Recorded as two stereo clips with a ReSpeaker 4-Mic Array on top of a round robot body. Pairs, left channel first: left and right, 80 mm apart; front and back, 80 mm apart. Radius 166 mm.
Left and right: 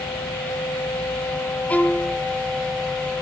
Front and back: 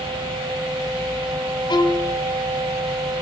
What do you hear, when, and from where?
1.7 s a violin: 20° left, 1.2 m